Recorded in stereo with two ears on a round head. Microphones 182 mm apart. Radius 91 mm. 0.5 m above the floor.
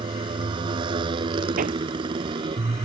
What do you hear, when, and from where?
0.0 s a motorcycle: 25° right (ahead or behind)
1.6 s hammering: 40° right (ahead or behind)